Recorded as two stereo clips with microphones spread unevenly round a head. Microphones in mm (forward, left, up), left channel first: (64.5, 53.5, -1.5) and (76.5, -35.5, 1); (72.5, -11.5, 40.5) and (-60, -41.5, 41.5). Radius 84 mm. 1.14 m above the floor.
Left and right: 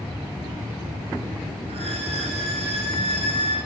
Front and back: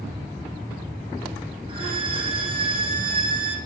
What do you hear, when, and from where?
1.7 s a violin: 115° right, 9.5 m